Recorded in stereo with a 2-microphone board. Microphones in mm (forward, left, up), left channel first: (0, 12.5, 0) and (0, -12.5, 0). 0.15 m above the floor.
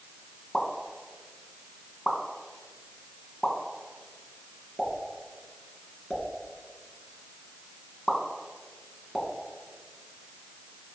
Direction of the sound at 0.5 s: 20° left (ahead or behind).